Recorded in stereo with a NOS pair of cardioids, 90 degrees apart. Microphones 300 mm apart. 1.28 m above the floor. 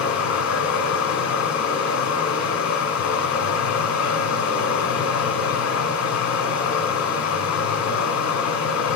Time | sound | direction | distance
0.0 | running water | 65° left | 3 m